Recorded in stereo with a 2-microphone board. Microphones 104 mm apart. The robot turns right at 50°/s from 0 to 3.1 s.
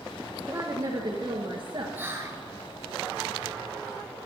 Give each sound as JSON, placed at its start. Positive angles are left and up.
{"t": 0.5, "sound": "a woman speaking", "azimuth_deg": -140, "distance_m": 1.6}
{"t": 1.9, "sound": "whispering", "side_deg": -20, "distance_m": 1.7}